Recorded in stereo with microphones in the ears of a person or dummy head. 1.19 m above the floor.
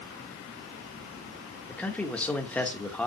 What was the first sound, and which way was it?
A man speaking, 5° left (ahead or behind).